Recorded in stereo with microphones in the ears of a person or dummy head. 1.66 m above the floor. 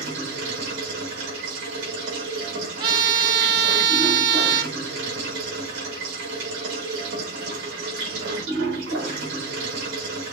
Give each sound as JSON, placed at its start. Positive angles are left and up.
{"t": 0.0, "sound": "running water", "side_deg": -75, "distance_m": 3.5}
{"t": 2.8, "sound": "a trumpet", "side_deg": -25, "distance_m": 0.7}